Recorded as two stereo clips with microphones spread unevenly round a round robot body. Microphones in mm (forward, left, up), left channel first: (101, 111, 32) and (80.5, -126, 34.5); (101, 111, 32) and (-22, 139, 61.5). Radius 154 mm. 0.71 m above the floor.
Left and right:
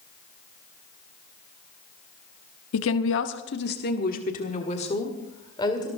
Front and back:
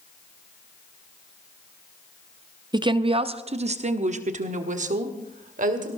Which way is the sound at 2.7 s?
105° left.